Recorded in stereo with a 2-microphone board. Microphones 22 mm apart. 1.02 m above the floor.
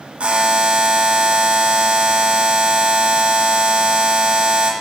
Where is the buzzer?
60° right (ahead or behind), 1.9 m.